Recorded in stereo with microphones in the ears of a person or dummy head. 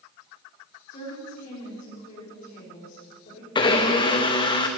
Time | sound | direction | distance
0.9 | a woman speaking | 40° left (ahead or behind) | 4 m
3.5 | a blender | 25° left (ahead or behind) | 1.0 m